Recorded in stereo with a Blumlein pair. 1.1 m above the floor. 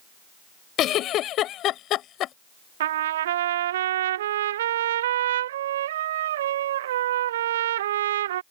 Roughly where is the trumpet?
Ahead right.